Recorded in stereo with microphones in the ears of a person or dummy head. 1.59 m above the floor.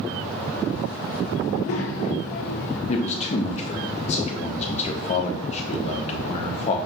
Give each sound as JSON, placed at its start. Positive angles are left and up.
{"t": 1.4, "sound": "a child speaking", "side_deg": 50, "distance_m": 0.7}
{"t": 2.9, "sound": "a man speaking", "side_deg": 40, "distance_m": 0.6}